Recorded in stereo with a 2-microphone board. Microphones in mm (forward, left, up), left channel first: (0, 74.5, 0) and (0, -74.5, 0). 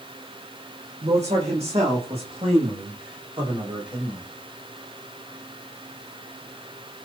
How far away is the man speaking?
About 8.5 m.